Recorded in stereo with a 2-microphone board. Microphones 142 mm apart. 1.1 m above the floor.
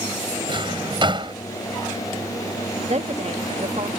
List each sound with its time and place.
0.5 s a drawer: 35° right (ahead or behind)
2.9 s a woman speaking: 50° right (ahead or behind)